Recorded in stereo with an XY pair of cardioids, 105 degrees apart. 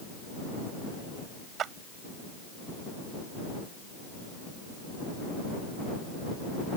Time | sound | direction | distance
1.6 | a clap | 65° right | ?